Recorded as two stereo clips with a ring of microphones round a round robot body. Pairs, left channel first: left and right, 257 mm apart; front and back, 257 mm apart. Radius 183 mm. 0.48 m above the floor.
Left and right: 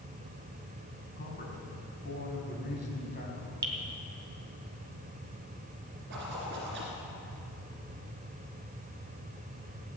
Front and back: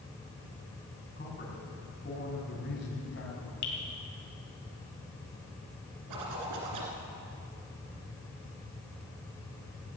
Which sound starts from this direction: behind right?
A zipper, at 6.1 s.